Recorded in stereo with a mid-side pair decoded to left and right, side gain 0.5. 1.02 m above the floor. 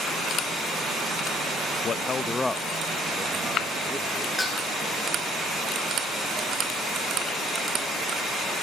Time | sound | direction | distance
1.8 | a man speaking | 50° left | 0.5 m
4.4 | dishes clattering | 15° left | 10 m